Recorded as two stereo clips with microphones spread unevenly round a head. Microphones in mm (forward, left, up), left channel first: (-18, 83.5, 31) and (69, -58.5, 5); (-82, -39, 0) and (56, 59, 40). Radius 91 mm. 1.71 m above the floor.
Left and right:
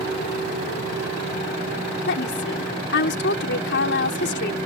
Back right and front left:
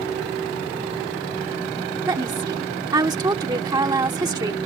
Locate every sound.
2.1 s a woman speaking: 100° left